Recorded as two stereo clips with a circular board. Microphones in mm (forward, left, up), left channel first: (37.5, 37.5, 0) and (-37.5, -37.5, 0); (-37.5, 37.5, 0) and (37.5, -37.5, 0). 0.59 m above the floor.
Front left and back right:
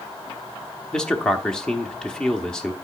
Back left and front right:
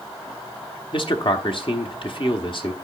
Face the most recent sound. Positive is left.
turn(degrees=125)